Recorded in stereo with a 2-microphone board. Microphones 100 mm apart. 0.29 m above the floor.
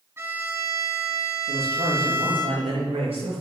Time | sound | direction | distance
0.2 | a violin | 25° right (ahead or behind) | 2.5 m
1.5 | a man speaking | 80° right | 6 m